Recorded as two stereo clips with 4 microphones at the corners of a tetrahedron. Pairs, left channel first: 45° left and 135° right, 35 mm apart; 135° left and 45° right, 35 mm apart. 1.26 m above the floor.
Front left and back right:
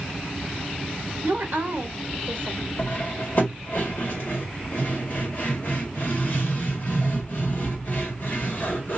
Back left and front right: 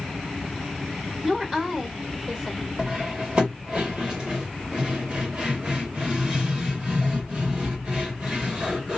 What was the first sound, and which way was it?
A woman speaking, 115° right.